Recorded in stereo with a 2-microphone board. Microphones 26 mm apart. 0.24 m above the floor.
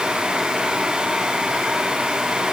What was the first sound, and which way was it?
Only background noise.